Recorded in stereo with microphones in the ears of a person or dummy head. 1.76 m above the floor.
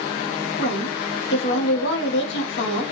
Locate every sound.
0.6 s a woman speaking: 70° left (ahead or behind), 1.7 m